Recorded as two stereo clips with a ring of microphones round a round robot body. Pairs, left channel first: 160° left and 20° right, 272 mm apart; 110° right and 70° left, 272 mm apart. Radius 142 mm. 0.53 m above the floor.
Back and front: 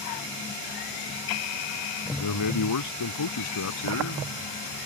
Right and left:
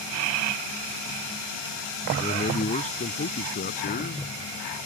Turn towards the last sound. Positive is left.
turn(degrees=-170)